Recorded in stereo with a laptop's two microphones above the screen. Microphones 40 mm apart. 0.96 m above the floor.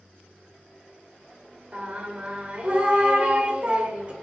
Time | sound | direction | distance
1.7 | singing | 35° right (ahead or behind) | 1.4 m